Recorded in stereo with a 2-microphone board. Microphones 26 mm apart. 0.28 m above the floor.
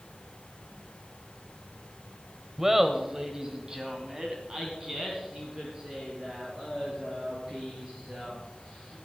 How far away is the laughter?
About 1.1 m.